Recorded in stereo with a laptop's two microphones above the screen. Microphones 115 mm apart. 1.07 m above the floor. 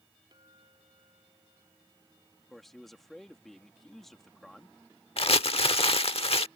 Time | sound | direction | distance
0.3 | a clink | 40° right (ahead or behind) | ?
2.5 | a man speaking | 5° left (ahead or behind) | ?
5.2 | crumpling | 60° left (ahead or behind) | ?